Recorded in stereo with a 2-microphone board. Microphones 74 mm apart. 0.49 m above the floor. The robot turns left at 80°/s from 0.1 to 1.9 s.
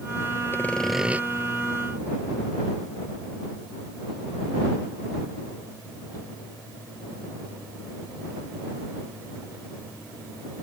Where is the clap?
No clap in this recording.